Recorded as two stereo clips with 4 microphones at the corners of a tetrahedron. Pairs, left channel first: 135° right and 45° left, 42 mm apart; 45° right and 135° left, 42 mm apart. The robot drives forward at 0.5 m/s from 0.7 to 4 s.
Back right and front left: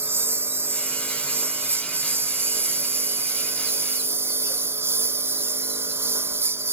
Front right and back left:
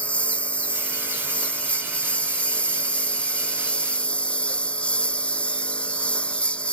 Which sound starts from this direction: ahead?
A lawn mower, at 0.0 s.